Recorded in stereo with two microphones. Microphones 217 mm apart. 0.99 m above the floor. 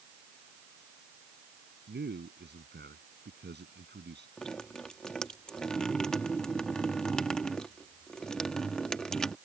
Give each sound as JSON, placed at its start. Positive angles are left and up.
{"t": 1.9, "sound": "a man speaking", "side_deg": -50}
{"t": 4.4, "sound": "dripping", "side_deg": 5}